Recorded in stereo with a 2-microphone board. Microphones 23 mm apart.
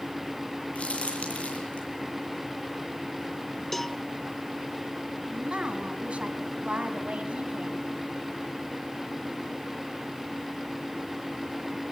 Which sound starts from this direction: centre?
A cowbell, at 3.7 s.